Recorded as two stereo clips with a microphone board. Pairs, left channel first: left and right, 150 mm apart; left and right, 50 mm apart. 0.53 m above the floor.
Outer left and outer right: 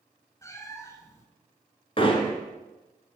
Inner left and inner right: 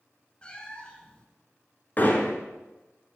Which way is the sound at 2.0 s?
35° left (ahead or behind).